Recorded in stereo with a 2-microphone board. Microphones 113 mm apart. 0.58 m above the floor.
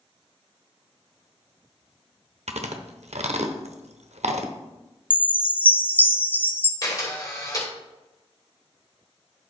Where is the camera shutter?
35° left (ahead or behind), 2.5 m.